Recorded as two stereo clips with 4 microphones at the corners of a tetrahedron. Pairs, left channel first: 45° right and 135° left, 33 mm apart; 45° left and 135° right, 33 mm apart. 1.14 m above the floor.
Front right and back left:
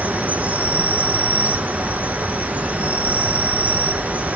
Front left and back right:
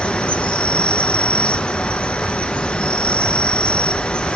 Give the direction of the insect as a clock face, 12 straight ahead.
9 o'clock.